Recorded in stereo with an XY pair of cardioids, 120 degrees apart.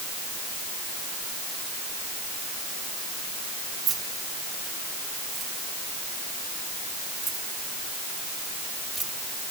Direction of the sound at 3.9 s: 65° right.